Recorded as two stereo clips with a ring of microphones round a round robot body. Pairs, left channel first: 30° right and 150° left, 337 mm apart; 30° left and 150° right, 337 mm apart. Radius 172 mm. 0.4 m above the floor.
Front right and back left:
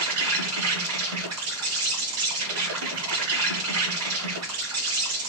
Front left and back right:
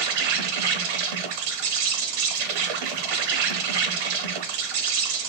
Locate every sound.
0.0 s an insect: 160° right, 0.8 m